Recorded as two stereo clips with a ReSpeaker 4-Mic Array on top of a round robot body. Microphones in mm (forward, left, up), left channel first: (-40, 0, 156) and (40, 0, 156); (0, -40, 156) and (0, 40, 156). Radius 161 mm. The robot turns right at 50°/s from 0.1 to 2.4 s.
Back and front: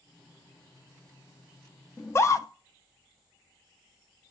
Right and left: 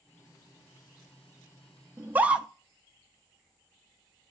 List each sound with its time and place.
2.0 s a scream: 140° left, 0.8 m; by 2.5 s 160° left, 0.8 m